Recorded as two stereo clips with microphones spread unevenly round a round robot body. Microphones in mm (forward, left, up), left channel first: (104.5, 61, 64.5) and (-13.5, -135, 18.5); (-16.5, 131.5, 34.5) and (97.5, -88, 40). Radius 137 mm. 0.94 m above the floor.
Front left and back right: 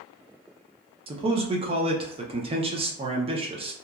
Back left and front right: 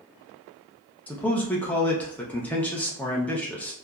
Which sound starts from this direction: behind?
A man speaking, at 1.1 s.